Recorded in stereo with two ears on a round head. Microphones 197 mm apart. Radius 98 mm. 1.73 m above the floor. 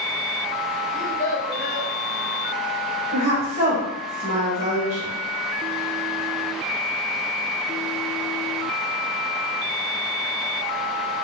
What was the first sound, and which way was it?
A child speaking, 10° right (ahead or behind).